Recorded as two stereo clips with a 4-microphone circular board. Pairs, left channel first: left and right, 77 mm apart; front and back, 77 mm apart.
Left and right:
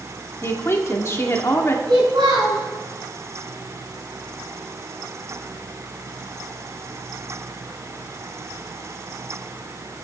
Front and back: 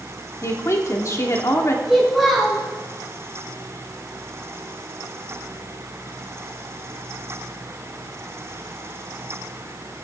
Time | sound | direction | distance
0.4 | a woman speaking | 45° left | 1.8 m
1.9 | a child speaking | 90° right | 4.5 m